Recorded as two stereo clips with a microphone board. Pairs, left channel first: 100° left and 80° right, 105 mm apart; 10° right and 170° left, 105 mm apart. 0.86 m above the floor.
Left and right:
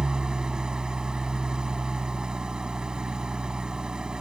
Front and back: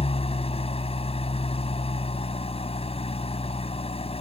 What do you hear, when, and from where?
0.0 s an engine running: 5° left